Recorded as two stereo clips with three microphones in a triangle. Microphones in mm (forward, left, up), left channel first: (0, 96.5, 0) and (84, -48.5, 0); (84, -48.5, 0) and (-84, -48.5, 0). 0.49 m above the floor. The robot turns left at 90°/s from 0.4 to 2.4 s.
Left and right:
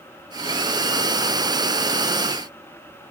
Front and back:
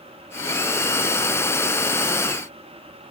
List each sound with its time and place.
Only background noise.